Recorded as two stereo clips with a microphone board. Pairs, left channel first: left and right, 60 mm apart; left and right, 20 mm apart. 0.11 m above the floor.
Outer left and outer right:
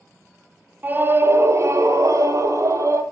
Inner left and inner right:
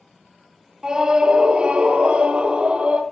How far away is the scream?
About 1.7 m.